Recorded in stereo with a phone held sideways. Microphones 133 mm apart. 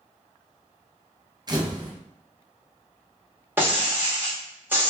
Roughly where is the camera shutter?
Right.